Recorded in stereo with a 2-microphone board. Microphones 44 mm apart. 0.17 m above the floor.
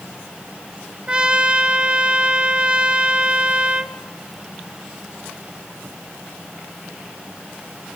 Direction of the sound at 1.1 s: 25° right (ahead or behind).